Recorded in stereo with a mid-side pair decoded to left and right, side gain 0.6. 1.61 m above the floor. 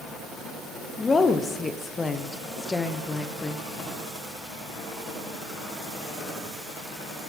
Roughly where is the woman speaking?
Ahead left.